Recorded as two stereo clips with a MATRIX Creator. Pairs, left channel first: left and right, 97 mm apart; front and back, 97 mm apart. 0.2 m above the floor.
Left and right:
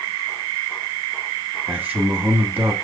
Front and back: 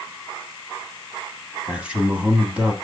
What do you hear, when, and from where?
1.7 s a man speaking: 125° right, 1.2 m